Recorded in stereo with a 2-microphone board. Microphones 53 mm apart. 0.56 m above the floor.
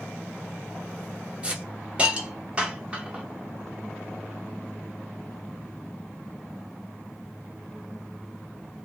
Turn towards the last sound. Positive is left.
turn(degrees=-20)  # may be behind; listen again after turning